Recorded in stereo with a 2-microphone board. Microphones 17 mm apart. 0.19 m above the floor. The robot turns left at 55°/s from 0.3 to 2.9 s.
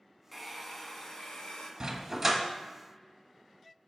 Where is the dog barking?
140° right, 1.0 m; by 2.4 s 170° right, 1.0 m.